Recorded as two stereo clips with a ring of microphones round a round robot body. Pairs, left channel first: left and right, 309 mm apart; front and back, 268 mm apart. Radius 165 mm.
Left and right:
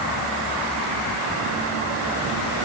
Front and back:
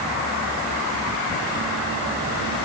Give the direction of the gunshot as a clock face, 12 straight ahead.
No gunshot in this recording.